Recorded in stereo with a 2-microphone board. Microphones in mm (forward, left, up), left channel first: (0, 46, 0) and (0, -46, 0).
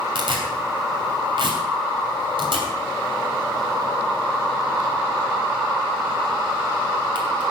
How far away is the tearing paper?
About 2.5 m.